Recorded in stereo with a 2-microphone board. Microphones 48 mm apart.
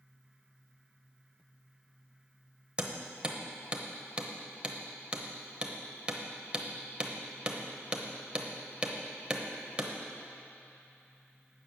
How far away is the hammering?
About 0.9 m.